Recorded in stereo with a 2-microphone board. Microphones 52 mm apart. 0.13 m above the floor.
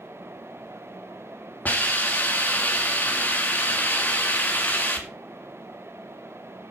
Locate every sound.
1.6 s a hiss: 35° left (ahead or behind), 1.8 m